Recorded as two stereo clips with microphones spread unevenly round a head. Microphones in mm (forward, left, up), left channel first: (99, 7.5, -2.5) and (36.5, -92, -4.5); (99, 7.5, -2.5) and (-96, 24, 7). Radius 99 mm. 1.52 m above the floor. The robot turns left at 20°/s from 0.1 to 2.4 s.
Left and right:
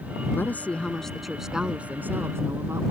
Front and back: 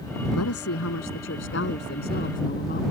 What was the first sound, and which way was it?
A woman speaking, 15° right.